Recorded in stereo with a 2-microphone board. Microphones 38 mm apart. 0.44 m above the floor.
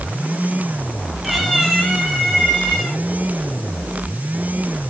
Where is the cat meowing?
Centre (ahead or behind), 1.8 m; by 3.0 s 15° left (ahead or behind), 3.5 m.